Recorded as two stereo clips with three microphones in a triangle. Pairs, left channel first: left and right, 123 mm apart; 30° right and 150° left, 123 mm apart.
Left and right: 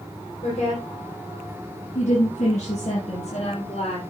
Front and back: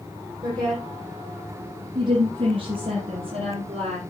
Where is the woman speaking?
95° left, 6 m; by 4.0 s 120° left, 4.5 m.